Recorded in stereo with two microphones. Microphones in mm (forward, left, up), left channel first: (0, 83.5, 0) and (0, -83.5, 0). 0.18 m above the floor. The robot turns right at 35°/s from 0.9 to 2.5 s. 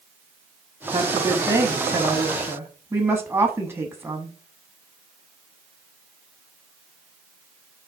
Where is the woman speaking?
20° right (ahead or behind), 1.0 m; by 4.3 s 15° right (ahead or behind), 1.0 m.